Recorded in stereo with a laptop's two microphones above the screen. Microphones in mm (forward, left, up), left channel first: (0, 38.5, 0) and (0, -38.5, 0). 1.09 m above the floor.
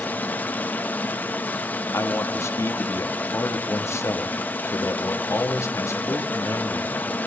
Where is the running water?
25° left (ahead or behind), 1.3 m.